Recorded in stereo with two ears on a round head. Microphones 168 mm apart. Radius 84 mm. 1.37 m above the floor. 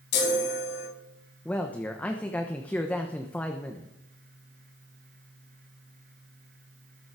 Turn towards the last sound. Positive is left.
turn(degrees=10)  # may be behind; listen again after turning